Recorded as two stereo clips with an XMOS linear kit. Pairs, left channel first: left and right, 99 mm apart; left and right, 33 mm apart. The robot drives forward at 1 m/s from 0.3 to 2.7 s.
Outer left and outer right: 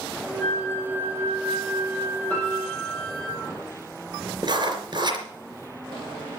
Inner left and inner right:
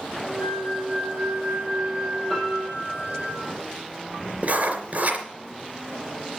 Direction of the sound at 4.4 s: 50° right (ahead or behind).